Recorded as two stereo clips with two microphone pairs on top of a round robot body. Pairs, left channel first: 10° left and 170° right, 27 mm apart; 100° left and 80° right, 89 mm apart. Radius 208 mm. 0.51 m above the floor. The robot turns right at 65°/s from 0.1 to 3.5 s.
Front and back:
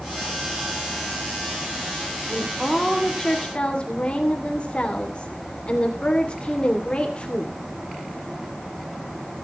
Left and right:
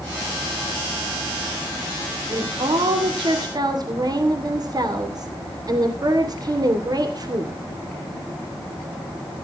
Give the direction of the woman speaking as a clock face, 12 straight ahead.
4 o'clock.